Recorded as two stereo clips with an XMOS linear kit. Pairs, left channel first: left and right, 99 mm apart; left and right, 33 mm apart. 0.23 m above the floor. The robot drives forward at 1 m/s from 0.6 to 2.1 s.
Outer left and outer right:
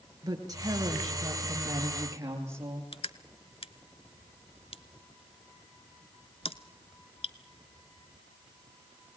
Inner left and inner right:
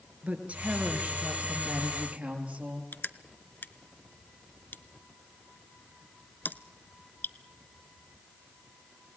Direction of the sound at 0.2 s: 40° right (ahead or behind).